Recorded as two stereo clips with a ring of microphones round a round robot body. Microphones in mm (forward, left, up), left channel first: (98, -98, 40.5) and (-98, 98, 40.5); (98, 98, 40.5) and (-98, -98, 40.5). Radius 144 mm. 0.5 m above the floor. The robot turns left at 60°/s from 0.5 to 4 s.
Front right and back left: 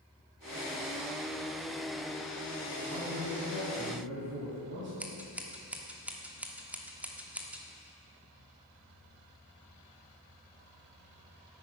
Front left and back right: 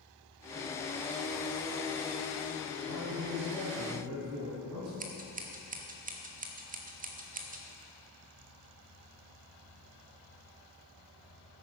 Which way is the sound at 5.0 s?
145° right.